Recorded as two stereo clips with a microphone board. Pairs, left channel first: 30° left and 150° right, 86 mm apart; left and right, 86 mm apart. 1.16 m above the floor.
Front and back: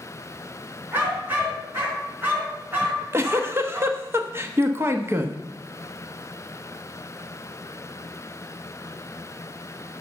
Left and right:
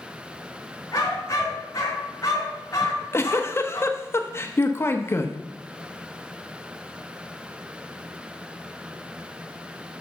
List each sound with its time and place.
0.9 s a dog barking: 145° left, 4 m
2.8 s a giggle: 150° left, 1.0 m